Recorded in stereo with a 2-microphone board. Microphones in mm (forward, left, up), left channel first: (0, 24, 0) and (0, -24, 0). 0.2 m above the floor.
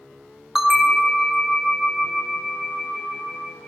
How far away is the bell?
About 0.8 m.